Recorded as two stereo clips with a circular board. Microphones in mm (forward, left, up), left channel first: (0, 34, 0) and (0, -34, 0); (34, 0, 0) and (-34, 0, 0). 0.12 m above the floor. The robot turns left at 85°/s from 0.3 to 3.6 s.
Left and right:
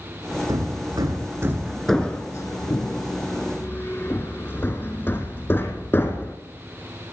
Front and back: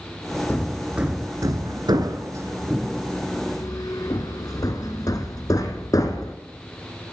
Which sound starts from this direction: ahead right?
Hammering, at 0.5 s.